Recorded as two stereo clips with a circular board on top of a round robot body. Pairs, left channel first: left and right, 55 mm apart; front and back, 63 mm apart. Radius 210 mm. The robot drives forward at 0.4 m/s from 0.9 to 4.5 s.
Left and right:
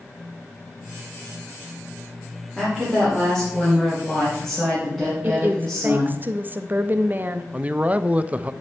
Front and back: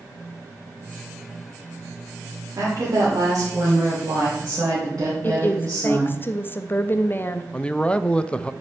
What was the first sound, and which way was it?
A woman speaking, 170° right.